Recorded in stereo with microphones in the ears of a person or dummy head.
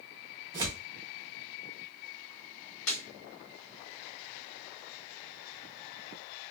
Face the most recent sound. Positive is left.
turn(degrees=70)  # may be behind; listen again after turning